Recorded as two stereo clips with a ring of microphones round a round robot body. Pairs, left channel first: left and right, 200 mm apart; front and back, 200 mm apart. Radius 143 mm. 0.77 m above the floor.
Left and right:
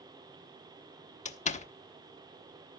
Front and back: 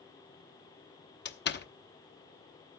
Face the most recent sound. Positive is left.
turn(degrees=35)